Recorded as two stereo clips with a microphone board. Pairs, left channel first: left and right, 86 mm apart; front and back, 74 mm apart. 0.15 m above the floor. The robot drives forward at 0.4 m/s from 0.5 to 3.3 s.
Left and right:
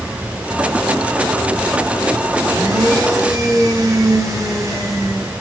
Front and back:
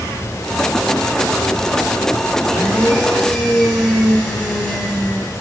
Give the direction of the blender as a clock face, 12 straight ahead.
3 o'clock.